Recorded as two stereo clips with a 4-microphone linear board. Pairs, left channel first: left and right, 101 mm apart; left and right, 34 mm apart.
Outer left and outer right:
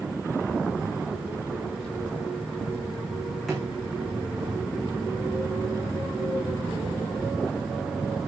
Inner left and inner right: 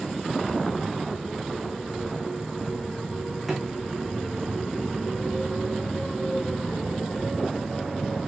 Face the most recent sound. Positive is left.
turn(degrees=0)  # may be behind; listen again after turning